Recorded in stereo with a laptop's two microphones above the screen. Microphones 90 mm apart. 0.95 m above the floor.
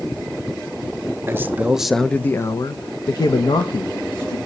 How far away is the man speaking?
About 0.8 m.